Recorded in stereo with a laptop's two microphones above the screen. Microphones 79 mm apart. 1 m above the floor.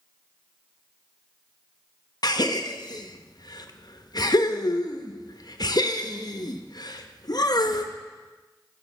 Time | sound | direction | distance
2.2 | a gasp | 55° left (ahead or behind) | 0.6 m